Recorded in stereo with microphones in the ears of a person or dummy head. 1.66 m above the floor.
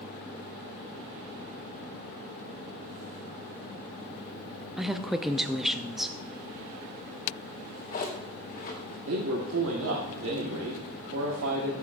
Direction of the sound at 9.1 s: 80° right.